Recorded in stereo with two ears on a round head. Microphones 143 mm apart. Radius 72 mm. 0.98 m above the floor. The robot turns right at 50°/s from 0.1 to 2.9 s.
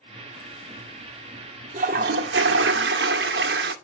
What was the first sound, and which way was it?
A toilet flushing, 130° right.